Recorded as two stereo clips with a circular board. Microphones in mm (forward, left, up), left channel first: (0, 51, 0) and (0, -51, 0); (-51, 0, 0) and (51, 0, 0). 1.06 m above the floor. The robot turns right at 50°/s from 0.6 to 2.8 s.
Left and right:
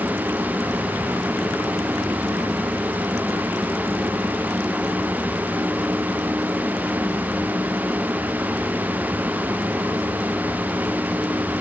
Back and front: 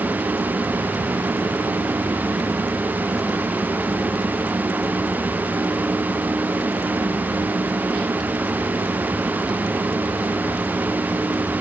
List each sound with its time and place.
Only background noise.